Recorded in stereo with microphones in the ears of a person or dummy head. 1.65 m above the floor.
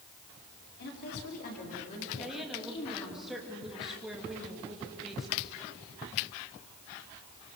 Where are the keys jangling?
I don't hear keys jangling.